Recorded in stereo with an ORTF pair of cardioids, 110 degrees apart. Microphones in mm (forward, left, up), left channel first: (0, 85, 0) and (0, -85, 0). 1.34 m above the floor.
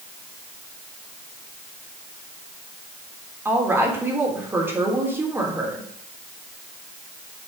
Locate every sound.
3.5 s a woman speaking: 15° right, 3.5 m